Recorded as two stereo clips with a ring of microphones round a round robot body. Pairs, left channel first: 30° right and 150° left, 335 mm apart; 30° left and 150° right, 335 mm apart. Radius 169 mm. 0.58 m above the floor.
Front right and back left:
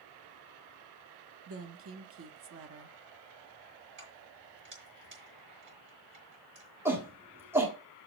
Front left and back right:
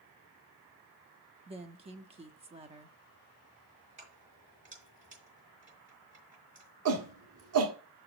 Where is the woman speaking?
150° left, 0.8 m.